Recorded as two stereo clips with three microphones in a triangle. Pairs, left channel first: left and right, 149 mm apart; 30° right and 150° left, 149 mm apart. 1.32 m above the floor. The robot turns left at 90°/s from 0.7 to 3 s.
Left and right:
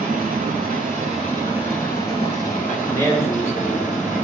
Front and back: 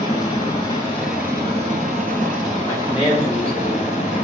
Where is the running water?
85° right, 3.5 m; by 4.2 s 65° left, 3.5 m.